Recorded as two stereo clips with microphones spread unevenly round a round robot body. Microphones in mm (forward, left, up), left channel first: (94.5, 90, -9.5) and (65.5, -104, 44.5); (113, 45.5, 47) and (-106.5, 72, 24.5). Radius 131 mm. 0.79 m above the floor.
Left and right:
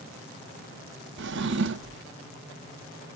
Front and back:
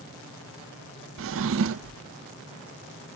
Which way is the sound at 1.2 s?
150° right.